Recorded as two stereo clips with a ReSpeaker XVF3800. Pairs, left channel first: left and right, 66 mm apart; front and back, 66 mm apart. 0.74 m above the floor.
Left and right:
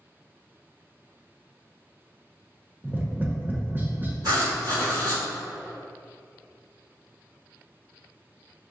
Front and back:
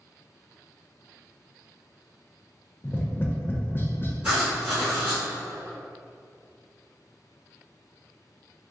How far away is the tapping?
About 0.6 m.